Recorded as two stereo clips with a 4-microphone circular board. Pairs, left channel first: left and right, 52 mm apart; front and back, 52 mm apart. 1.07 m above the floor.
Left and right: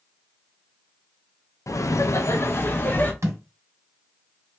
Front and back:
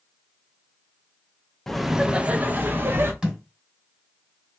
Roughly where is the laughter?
Left.